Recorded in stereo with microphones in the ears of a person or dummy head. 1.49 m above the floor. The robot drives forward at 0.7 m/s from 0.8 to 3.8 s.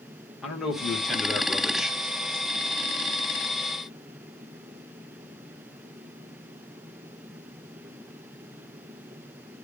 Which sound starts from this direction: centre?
A man speaking, at 0.4 s.